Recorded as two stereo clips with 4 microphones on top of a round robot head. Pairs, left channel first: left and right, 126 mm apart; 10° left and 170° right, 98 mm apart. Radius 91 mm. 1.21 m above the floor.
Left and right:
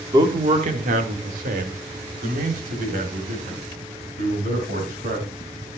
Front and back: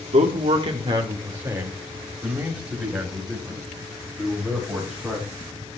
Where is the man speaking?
155° right, 1.4 m; by 5.2 s 80° right, 7.5 m.